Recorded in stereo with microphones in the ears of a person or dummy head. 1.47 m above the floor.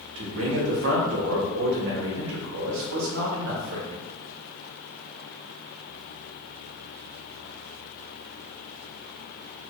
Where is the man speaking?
75° right (ahead or behind), 1.1 m.